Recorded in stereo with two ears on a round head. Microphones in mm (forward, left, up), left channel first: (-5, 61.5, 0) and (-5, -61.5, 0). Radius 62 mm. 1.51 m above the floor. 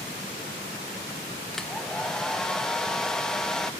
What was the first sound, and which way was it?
A hair dryer, 5° left (ahead or behind).